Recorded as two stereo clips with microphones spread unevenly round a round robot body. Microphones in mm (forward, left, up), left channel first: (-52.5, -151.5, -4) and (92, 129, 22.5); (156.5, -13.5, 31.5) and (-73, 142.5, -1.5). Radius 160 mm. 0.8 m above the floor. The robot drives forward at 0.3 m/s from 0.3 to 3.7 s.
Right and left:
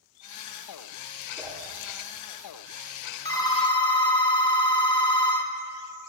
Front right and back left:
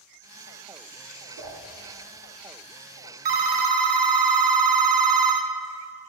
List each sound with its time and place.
1.4 s a whoosh: 155° left, 1.6 m
3.2 s a phone ringing: 165° left, 0.6 m